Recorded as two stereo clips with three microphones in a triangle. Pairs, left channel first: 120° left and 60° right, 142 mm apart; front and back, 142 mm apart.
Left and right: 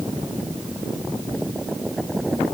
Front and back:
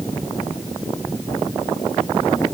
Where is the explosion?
No explosion in this recording.